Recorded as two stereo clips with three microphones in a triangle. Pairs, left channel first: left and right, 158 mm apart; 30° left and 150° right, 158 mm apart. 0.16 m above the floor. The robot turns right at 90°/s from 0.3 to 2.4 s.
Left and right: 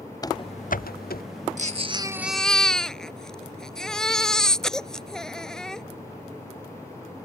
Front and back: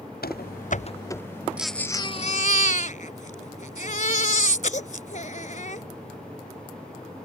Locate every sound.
0.2 s running footsteps: 25° left; by 1.2 s 110° left
1.6 s a baby crying: 70° right; by 5.8 s 5° left